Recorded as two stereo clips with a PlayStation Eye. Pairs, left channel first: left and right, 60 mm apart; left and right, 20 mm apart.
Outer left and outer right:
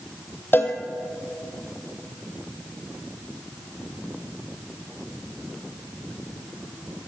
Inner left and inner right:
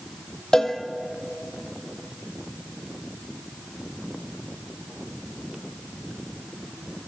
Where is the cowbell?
35° left (ahead or behind), 2 m.